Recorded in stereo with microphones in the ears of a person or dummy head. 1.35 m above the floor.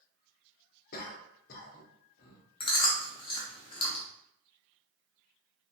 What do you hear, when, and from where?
0.9 s a cough: 50° left (ahead or behind), 0.6 m
2.6 s chewing: 20° left (ahead or behind), 0.6 m